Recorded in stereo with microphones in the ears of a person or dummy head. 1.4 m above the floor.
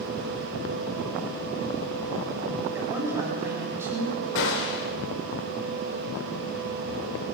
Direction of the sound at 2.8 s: 20° right (ahead or behind).